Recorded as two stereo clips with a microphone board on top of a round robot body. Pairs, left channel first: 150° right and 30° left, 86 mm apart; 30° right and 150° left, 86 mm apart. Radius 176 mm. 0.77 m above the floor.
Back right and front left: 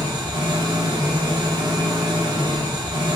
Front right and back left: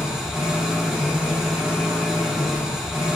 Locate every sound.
0.0 s an engine running: 65° left, 0.9 m